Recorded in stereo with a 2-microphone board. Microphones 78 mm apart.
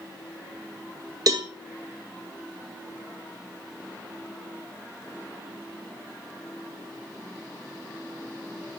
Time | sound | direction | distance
1.3 | a cowbell | 55° right (ahead or behind) | 0.8 m